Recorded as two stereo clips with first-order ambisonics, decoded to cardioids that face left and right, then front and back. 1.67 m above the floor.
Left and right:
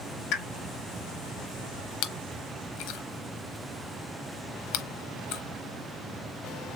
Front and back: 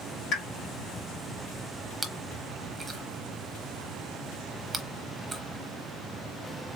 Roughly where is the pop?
Ahead left.